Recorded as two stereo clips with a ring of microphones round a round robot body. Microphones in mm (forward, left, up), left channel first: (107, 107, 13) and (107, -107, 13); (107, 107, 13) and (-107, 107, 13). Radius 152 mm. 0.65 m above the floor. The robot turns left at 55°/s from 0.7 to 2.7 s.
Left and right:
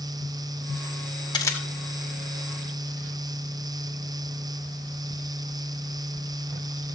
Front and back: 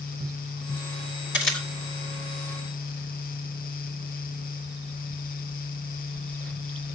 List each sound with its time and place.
1.3 s a camera shutter: 20° left, 2.5 m; by 1.7 s 5° left, 2.5 m